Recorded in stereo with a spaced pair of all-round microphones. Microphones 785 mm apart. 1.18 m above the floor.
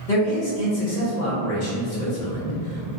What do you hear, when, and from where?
0.1 s a man speaking: 70° left (ahead or behind), 1.5 m